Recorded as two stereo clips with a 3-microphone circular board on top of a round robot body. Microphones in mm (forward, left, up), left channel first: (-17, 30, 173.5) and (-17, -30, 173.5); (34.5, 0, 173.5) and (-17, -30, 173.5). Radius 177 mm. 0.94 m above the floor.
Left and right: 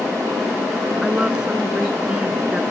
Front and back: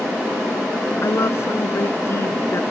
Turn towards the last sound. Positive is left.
turn(degrees=-15)